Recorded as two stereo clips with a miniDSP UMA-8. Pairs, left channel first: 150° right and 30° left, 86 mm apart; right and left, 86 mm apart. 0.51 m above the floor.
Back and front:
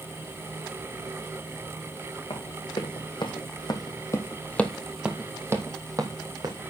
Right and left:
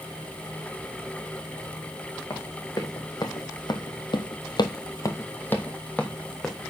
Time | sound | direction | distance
2.3 | running footsteps | 140° right | 2.5 m